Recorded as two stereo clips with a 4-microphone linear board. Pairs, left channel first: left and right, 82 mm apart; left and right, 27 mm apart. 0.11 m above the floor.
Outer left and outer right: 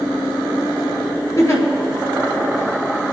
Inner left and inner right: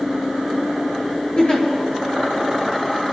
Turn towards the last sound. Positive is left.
turn(degrees=35)  # may be behind; listen again after turning